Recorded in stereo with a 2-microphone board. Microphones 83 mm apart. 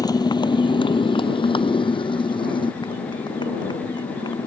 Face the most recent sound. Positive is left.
turn(degrees=55)  # may be behind; listen again after turning